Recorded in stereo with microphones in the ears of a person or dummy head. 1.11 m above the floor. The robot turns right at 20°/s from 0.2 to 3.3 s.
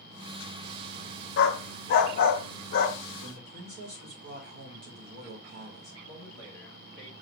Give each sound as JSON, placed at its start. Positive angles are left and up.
{"t": 1.4, "sound": "a dog barking", "side_deg": 65, "distance_m": 1.0}
{"t": 3.2, "sound": "a man speaking", "side_deg": -50, "distance_m": 1.5}
{"t": 6.0, "sound": "a man speaking", "side_deg": -65, "distance_m": 3.0}